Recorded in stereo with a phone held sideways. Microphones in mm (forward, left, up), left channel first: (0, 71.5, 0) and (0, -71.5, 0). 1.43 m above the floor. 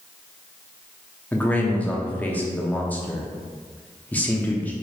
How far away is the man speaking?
About 0.7 m.